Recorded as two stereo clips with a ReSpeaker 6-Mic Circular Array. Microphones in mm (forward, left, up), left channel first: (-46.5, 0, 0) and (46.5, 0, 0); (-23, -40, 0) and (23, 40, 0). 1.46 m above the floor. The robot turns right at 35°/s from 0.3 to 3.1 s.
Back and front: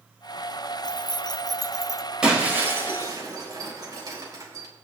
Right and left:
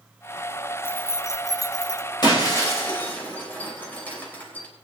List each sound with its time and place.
0.8 s keys jangling: straight behind, 0.5 m; by 2.0 s 135° right, 0.5 m
2.2 s breaking glass: 80° right, 3.5 m; by 4.7 s 50° right, 3.5 m